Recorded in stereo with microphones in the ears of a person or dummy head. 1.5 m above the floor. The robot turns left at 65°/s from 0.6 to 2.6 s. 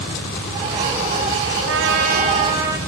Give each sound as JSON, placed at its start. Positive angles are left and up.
{"t": 1.7, "sound": "a trumpet", "azimuth_deg": -110, "distance_m": 5.5}